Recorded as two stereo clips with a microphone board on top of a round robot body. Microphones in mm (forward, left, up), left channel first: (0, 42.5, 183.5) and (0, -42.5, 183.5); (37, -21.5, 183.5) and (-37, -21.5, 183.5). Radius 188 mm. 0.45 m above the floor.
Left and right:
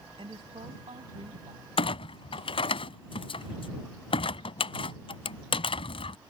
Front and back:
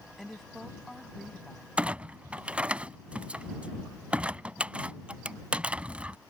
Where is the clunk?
105° left.